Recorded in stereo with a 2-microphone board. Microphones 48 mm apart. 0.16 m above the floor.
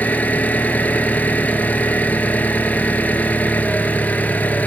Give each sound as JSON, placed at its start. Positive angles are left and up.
{"t": 0.0, "sound": "an engine running", "side_deg": 35, "distance_m": 0.7}